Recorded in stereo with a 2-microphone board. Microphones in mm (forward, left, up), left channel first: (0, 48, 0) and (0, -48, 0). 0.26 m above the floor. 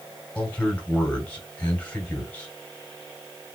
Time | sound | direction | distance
0.3 | a man speaking | 15° left (ahead or behind) | 1.3 m